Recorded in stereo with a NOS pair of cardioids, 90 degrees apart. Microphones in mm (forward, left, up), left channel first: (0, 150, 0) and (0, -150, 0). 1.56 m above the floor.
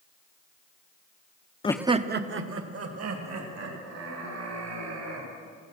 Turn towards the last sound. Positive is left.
turn(degrees=-60)